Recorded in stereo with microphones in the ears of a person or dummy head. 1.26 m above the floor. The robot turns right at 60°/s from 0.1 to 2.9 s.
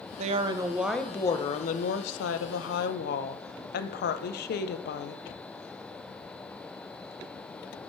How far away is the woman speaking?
About 0.6 m.